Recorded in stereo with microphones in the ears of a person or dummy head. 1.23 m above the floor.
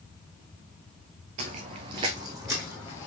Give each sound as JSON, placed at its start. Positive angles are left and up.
{"t": 1.4, "sound": "footsteps", "side_deg": -30, "distance_m": 1.4}